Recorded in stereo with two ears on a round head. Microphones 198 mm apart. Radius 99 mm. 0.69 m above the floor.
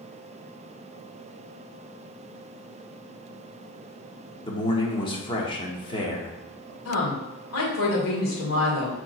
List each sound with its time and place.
4.4 s a man speaking: 25° left (ahead or behind), 1.5 m
6.8 s a woman speaking: 65° left (ahead or behind), 2.5 m